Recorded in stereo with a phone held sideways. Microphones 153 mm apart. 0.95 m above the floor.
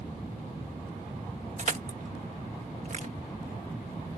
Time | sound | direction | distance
1.6 | crushing | 50° right (ahead or behind) | ?